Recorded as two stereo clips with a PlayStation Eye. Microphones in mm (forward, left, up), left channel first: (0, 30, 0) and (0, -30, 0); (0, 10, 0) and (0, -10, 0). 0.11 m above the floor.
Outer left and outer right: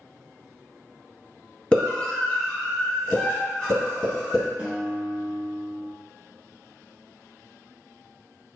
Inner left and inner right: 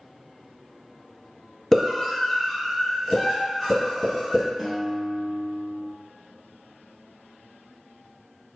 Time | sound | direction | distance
1.7 | a scream | 15° left (ahead or behind) | 1.8 m
4.6 | a guitar | 20° right (ahead or behind) | 1.1 m